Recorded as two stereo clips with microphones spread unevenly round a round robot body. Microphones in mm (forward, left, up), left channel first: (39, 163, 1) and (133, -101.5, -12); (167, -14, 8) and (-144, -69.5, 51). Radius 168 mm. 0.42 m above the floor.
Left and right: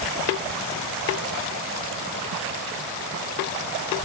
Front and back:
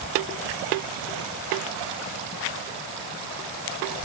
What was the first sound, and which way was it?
Only background noise.